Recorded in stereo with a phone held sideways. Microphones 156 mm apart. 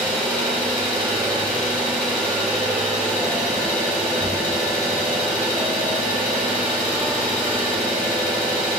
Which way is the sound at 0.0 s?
5° left (ahead or behind).